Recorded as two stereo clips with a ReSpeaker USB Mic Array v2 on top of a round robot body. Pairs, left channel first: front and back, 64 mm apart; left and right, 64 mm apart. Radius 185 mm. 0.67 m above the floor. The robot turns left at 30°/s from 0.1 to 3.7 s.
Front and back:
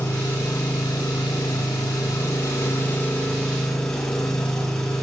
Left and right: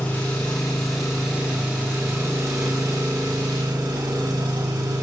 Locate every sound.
0.0 s an engine running: 25° left, 6.5 m; by 5.0 s 85° right, 6.5 m